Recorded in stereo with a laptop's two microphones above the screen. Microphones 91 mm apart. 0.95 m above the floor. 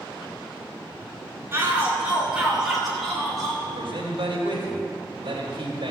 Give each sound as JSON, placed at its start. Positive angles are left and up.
{"t": 1.5, "sound": "a shout", "side_deg": -25, "distance_m": 2.5}
{"t": 3.6, "sound": "a man speaking", "side_deg": -70, "distance_m": 3.0}